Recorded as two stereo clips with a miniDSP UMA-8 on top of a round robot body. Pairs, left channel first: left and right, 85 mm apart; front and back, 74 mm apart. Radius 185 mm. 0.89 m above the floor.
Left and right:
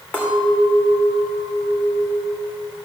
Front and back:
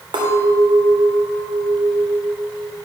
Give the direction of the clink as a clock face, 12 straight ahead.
6 o'clock.